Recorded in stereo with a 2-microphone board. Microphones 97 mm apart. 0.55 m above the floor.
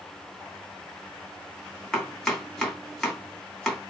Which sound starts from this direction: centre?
Chopping, at 1.9 s.